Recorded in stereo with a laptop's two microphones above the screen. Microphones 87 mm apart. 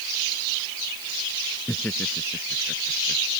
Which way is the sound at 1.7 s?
10° left (ahead or behind).